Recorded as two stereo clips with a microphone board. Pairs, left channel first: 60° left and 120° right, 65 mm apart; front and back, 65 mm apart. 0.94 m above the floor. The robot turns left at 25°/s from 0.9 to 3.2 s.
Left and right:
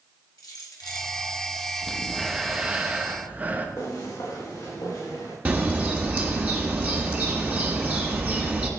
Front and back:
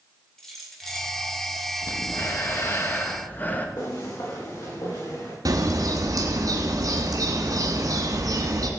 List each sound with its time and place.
0.4 s keys jangling: 85° left, 2.5 m; by 1.1 s 80° left, 2.5 m
1.8 s breathing: 25° right, 1.2 m; by 3.7 s 60° right, 1.2 m
3.8 s footsteps: 15° left, 5.5 m; by 5.3 s 20° left, 7 m
5.5 s a bird: 175° left, 1.9 m